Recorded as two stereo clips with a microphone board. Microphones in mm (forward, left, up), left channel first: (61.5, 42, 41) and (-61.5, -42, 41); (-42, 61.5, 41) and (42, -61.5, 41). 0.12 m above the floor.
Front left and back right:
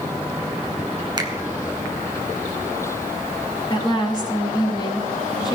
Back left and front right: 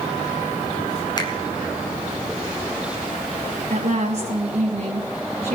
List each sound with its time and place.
1.2 s a finger snap: 170° left, 1.3 m
3.7 s a woman speaking: 25° right, 2.5 m